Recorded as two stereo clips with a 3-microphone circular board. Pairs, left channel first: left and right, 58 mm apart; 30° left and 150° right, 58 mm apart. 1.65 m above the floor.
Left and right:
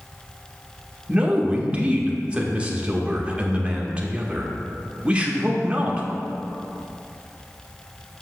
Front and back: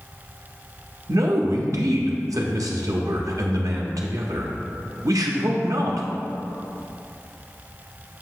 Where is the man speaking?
160° right, 0.6 m.